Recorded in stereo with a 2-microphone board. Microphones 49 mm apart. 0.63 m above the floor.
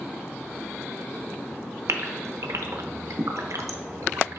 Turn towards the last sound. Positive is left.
turn(degrees=-85)